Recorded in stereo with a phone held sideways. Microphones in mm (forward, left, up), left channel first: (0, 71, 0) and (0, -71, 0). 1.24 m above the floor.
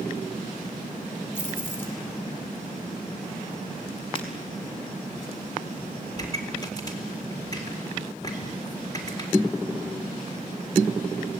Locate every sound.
1.4 s keys jangling: 15° left (ahead or behind), 6 m
4.2 s breaking glass: 40° left (ahead or behind), 5 m
6.2 s a pop: 25° left (ahead or behind), 4 m